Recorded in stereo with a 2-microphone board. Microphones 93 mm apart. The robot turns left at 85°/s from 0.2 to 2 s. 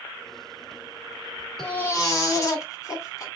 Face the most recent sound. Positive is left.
turn(degrees=140)